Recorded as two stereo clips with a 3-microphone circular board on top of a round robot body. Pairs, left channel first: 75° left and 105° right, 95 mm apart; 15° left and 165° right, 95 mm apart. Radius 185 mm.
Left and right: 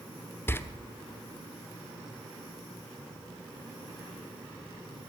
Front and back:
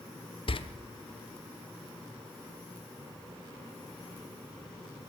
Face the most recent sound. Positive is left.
turn(degrees=10)